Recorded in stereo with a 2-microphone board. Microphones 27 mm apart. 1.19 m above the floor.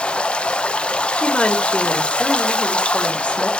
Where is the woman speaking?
40° left (ahead or behind), 2.5 m.